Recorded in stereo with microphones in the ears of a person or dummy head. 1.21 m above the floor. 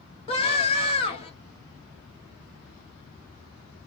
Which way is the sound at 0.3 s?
30° left (ahead or behind).